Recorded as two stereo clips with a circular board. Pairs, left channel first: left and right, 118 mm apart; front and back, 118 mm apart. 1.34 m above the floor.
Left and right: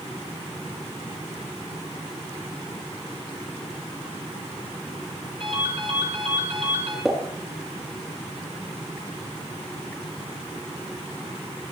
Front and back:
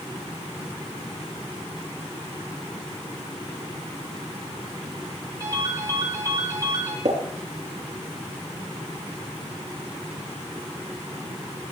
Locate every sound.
5.4 s a ringtone: 120° right, 6.5 m
7.0 s a pop: 175° right, 3.5 m